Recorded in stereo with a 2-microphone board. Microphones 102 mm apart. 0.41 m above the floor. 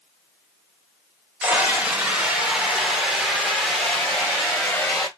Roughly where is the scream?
Centre.